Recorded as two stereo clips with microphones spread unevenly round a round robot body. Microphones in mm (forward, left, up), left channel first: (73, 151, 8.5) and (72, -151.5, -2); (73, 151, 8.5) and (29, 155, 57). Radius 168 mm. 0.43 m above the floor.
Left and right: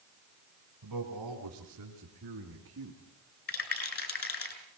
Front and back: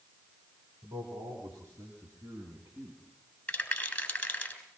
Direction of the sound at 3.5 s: 50° left.